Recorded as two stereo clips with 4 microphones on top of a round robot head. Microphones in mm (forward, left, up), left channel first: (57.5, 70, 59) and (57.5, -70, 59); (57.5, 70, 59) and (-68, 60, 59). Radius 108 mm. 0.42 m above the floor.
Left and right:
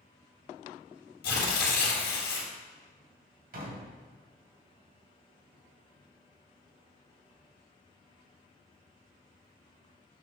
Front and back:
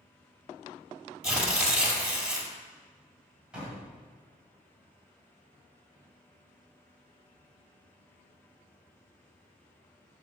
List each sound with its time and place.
1.2 s tearing paper: 100° left, 2.5 m
3.5 s a door slam: 90° right, 2 m